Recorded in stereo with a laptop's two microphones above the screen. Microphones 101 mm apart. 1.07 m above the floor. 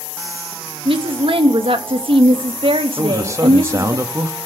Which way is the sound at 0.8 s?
65° right (ahead or behind).